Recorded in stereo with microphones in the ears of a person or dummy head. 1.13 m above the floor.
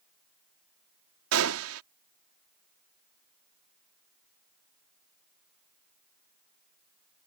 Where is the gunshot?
75° right (ahead or behind).